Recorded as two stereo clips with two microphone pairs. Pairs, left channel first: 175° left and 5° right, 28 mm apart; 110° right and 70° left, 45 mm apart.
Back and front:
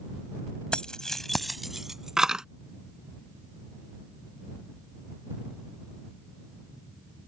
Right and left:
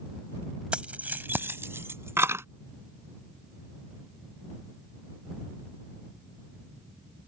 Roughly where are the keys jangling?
Behind left.